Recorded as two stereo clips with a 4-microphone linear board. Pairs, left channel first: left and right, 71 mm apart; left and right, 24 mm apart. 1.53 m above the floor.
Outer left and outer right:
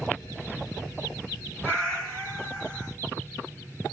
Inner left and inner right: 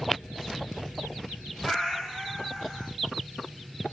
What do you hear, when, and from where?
1.6 s a cat meowing: 10° left (ahead or behind), 1.7 m